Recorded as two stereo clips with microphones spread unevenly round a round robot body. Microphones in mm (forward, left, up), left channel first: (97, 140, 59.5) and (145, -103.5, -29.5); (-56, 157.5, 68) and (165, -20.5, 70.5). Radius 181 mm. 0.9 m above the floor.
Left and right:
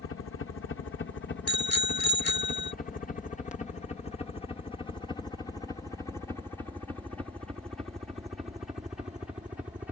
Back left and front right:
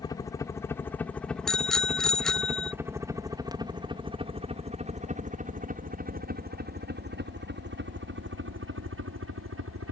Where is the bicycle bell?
55° left.